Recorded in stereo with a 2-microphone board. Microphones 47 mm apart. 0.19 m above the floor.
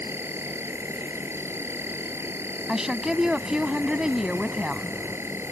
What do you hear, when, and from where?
0.0 s an insect: 65° right (ahead or behind)
2.7 s a woman speaking: 15° right (ahead or behind)